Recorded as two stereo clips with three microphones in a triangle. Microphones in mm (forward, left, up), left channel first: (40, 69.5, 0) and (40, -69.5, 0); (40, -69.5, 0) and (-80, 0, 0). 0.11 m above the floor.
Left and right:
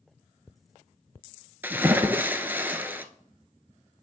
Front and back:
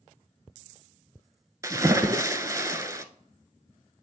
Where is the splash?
155° right, 0.5 m.